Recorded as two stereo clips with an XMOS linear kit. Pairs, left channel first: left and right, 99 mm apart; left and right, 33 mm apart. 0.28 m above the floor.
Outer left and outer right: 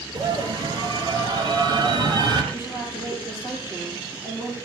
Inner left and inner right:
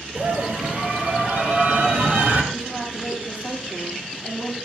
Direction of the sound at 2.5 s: 25° right (ahead or behind).